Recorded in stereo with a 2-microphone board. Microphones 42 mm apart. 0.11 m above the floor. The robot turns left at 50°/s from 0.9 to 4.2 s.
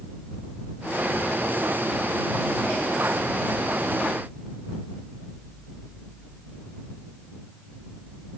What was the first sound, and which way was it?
Only background noise.